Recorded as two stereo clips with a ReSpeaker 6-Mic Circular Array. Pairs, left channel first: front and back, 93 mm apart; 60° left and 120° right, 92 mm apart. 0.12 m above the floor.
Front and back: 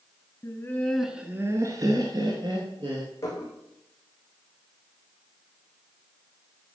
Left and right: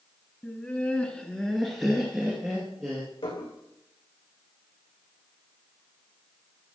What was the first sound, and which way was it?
Laughter, 5° left.